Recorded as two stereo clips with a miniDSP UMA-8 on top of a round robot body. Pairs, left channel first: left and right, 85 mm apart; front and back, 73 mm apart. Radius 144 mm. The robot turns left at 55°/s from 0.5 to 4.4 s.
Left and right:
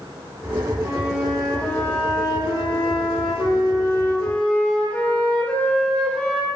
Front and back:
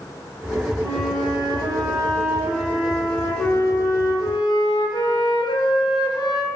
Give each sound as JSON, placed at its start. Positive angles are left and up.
{"t": 0.8, "sound": "a flute", "azimuth_deg": -150, "distance_m": 0.6}